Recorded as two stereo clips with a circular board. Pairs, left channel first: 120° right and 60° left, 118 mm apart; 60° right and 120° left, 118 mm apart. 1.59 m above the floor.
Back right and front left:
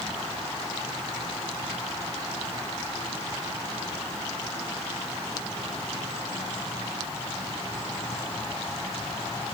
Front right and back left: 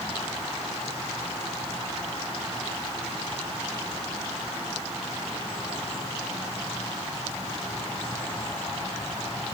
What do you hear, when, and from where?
Only background noise.